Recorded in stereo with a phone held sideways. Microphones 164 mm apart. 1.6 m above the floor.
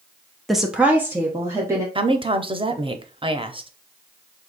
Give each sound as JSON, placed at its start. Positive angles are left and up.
{"t": 0.5, "sound": "a woman speaking", "side_deg": 0, "distance_m": 0.6}
{"t": 1.9, "sound": "a woman speaking", "side_deg": -30, "distance_m": 0.6}